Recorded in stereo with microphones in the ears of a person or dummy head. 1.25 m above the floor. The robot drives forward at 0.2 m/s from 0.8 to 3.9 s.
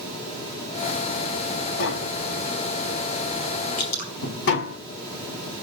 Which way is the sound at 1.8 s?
55° left (ahead or behind).